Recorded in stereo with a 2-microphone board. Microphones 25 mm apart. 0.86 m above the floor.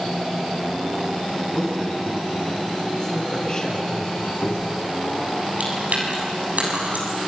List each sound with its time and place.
1.5 s a man speaking: 20° left (ahead or behind), 7.5 m; by 4.1 s 30° left (ahead or behind), 7 m
4.2 s a squeak: 80° left, 6.5 m
5.6 s chewing: 70° right (ahead or behind), 7 m